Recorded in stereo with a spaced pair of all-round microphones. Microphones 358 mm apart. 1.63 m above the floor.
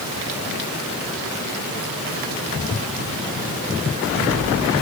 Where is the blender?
No blender in this recording.